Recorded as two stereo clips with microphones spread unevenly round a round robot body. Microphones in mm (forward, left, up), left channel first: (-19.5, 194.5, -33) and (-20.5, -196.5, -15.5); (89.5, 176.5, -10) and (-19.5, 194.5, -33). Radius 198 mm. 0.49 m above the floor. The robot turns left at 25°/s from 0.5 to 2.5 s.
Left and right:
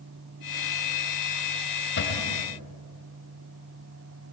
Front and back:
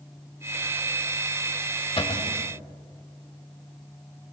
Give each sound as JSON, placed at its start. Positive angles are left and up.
{"t": 2.0, "sound": "a cupboard door", "azimuth_deg": 30, "distance_m": 3.0}